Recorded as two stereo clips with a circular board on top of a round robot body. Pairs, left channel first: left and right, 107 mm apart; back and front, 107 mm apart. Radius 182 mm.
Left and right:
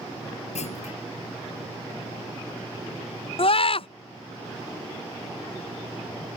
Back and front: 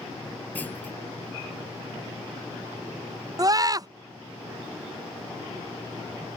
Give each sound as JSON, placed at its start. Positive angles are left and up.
{"t": 0.6, "sound": "a clunk", "azimuth_deg": 105}
{"t": 3.4, "sound": "a scream", "azimuth_deg": 55}